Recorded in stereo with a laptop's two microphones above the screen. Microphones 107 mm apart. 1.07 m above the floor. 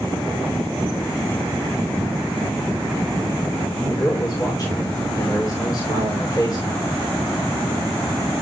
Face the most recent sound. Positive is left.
turn(degrees=35)  # may be behind; listen again after turning